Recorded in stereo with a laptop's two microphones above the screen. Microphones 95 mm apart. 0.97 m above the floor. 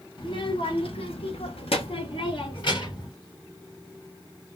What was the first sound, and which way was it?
A child speaking, 60° left (ahead or behind).